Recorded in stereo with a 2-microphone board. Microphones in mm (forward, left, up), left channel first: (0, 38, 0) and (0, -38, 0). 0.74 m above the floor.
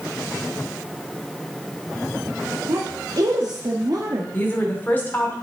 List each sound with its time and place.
2.7 s a woman speaking: 60° right (ahead or behind), 1.1 m
4.3 s a woman speaking: 25° left (ahead or behind), 2 m